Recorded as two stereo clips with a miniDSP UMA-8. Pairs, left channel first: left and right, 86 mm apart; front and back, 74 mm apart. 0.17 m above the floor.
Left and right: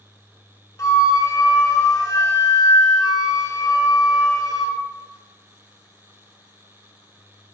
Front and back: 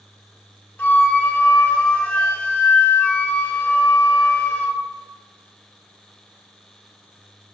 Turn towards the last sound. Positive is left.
turn(degrees=55)